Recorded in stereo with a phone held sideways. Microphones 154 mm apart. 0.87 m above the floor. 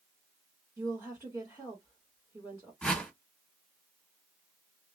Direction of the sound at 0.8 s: 10° right (ahead or behind).